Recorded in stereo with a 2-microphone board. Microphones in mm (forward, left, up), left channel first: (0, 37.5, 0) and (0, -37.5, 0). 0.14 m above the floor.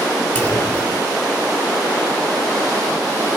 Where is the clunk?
25° left (ahead or behind), 3.5 m.